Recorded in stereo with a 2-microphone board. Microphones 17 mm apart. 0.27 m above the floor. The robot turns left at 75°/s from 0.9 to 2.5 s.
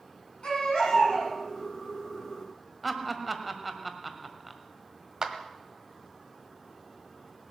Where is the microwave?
I don't hear a microwave.